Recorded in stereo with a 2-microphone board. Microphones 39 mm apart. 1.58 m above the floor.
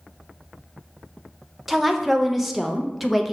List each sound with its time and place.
1.7 s a woman speaking: 5° right (ahead or behind), 0.5 m